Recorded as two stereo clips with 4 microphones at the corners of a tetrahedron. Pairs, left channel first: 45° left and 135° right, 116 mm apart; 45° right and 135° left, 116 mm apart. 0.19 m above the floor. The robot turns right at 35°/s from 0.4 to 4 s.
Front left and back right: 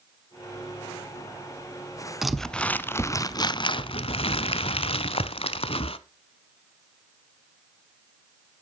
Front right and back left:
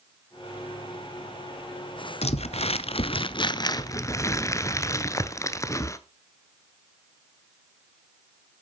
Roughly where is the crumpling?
Ahead right.